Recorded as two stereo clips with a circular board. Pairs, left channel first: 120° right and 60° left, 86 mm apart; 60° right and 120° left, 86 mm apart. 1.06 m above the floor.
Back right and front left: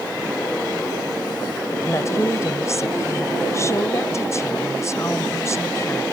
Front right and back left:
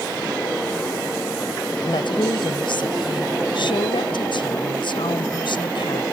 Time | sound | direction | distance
1.8 | a woman speaking | 70° right | ?